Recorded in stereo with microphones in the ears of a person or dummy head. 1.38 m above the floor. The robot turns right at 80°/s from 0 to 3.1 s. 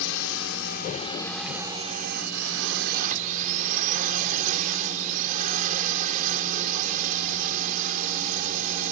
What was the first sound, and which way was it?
A drone, 65° left.